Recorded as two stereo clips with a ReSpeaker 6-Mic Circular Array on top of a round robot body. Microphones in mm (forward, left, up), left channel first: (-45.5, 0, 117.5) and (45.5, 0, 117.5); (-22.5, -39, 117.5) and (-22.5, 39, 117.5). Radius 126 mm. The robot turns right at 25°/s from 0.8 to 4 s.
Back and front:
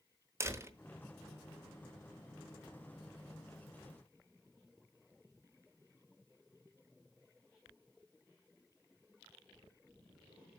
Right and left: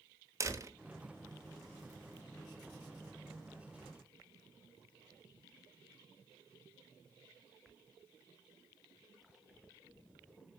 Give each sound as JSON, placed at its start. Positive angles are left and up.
{"t": 0.4, "sound": "a door slam", "azimuth_deg": 55, "distance_m": 1.0}